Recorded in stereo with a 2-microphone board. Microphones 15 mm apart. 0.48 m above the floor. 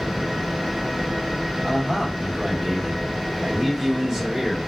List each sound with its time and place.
1.6 s a man speaking: 30° right (ahead or behind), 1.0 m